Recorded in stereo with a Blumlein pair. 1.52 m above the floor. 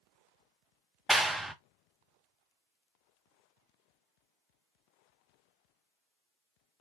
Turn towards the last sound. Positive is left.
turn(degrees=-5)